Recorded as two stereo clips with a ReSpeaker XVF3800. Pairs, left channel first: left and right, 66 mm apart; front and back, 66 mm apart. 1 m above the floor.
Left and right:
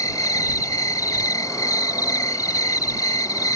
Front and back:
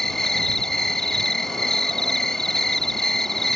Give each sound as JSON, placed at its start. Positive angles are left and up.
{"t": 0.0, "sound": "an insect", "azimuth_deg": 85}